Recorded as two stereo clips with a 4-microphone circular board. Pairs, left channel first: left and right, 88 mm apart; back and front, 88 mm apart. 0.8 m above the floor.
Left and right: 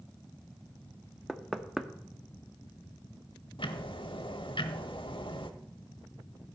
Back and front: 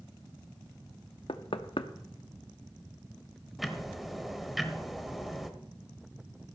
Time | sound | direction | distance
1.3 | knocking | straight behind | 0.8 m
3.6 | ticking | 90° left | 1.1 m